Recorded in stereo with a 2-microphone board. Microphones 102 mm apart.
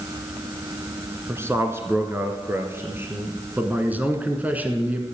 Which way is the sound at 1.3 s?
25° right (ahead or behind).